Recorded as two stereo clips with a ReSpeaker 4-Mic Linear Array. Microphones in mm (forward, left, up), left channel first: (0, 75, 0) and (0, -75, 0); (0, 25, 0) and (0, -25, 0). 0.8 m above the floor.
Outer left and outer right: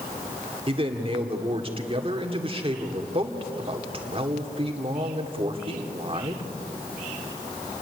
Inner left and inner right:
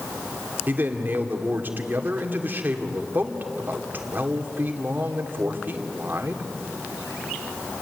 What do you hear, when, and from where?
0.7 s a man speaking: 40° right (ahead or behind), 2 m